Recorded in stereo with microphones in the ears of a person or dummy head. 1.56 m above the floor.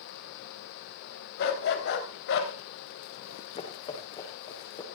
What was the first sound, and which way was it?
A dog barking, 60° left (ahead or behind).